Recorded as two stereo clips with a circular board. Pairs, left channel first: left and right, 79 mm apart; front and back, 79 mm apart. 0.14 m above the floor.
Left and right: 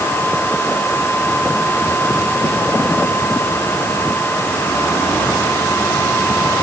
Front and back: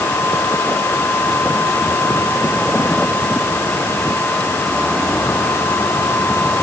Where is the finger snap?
No finger snap in this recording.